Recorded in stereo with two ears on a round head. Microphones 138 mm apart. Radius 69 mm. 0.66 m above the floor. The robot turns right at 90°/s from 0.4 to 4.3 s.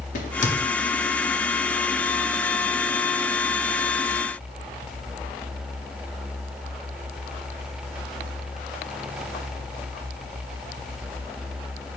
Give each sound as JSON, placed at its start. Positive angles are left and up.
{"t": 0.1, "sound": "a crack", "side_deg": 55, "distance_m": 0.7}